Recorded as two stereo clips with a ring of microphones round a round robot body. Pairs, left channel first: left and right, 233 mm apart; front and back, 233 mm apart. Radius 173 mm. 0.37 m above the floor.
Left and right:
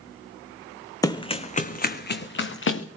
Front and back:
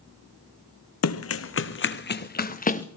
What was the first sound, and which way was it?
Running footsteps, 15° left.